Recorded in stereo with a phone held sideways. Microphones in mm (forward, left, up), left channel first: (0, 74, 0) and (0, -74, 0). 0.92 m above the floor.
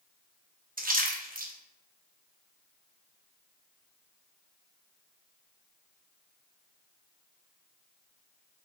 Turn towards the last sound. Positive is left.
turn(degrees=-65)  # may be behind; listen again after turning